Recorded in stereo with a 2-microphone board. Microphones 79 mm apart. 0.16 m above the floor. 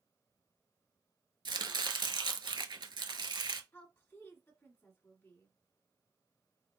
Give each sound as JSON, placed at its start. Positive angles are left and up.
{"t": 1.4, "sound": "chopping", "side_deg": -75, "distance_m": 0.6}
{"t": 3.7, "sound": "a woman speaking", "side_deg": 30, "distance_m": 1.6}